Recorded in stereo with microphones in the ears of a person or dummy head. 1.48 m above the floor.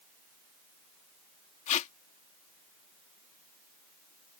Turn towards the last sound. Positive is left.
turn(degrees=40)  # may be behind; listen again after turning